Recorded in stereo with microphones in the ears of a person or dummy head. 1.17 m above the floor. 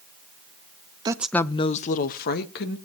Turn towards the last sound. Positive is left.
turn(degrees=55)  # may be behind; listen again after turning